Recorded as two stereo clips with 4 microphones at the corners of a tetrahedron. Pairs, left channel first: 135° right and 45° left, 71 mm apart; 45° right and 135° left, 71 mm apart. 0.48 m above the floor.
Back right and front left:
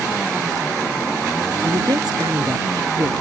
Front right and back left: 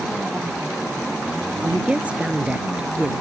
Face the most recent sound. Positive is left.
turn(degrees=65)